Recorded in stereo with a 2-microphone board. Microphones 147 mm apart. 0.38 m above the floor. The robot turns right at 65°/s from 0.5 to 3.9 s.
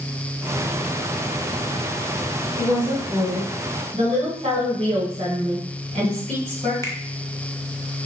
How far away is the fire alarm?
No fire alarm in this recording.